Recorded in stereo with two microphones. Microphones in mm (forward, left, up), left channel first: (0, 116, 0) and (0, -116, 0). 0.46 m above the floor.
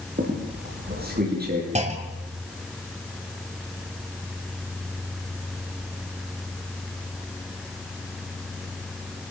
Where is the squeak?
40° right (ahead or behind), 7 m.